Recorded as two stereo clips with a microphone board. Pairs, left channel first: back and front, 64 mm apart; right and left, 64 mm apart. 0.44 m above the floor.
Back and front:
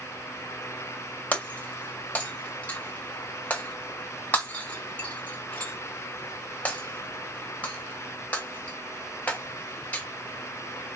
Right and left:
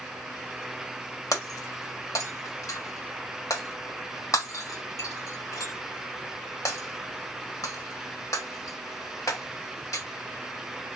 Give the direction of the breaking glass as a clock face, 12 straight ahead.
4 o'clock.